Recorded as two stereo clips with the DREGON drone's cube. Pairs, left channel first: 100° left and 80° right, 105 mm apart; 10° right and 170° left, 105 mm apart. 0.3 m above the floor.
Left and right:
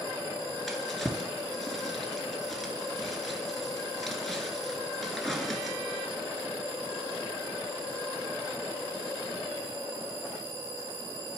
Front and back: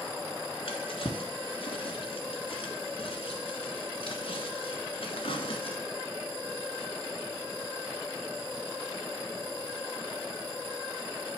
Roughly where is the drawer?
Ahead.